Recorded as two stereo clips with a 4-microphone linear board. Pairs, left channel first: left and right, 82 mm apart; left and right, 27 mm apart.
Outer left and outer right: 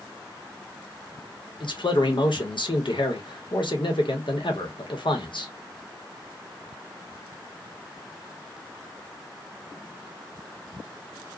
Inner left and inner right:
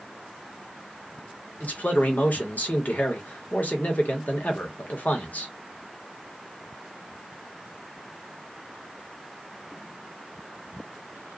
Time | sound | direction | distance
1.6 | a man speaking | 75° left (ahead or behind) | 0.9 m